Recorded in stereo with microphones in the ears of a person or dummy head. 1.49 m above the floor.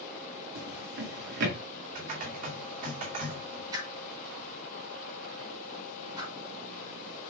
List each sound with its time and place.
0.6 s a drawer: 60° right (ahead or behind), 2 m
1.9 s typing on a keyboard: 40° right (ahead or behind), 2.5 m
3.7 s a whoosh: 20° right (ahead or behind), 2.5 m